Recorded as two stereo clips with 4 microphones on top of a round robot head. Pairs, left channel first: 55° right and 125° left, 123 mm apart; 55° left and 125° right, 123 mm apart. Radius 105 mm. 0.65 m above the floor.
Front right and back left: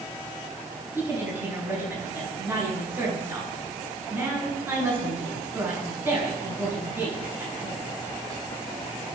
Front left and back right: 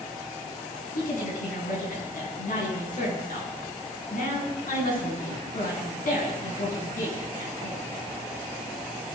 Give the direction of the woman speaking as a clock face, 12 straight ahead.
10 o'clock.